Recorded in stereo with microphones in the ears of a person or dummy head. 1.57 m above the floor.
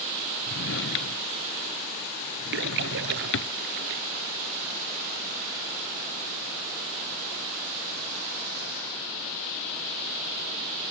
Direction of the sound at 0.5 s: 60° left (ahead or behind).